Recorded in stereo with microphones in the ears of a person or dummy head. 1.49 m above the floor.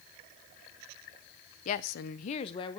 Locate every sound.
1.6 s a woman speaking: 40° left (ahead or behind), 0.7 m; by 2.8 s 25° left (ahead or behind), 1.3 m